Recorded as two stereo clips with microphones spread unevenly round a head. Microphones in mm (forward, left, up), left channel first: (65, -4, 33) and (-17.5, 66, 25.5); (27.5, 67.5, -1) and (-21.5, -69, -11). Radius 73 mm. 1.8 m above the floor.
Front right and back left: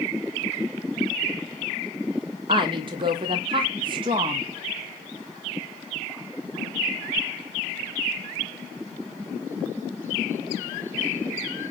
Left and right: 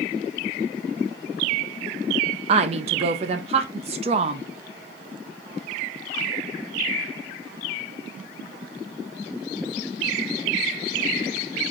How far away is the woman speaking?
About 0.6 m.